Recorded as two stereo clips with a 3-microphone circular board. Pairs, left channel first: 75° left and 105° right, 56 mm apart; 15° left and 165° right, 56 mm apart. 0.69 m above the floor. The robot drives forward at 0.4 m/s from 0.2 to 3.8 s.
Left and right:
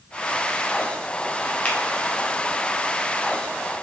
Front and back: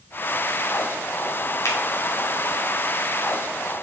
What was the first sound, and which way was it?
A finger snap, 15° left.